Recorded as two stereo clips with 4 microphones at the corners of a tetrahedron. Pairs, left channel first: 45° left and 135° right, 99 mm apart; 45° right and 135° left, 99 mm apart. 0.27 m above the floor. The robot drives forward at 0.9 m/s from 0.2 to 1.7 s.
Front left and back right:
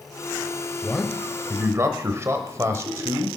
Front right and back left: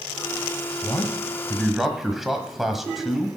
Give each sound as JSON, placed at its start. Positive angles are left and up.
{"t": 0.8, "sound": "a man speaking", "azimuth_deg": -40, "distance_m": 1.1}